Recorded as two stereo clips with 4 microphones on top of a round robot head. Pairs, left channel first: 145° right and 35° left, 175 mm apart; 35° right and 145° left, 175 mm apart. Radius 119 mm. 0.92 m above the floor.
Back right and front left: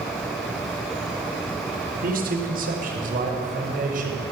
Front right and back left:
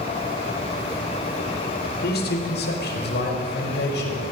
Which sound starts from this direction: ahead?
A man speaking, at 2.0 s.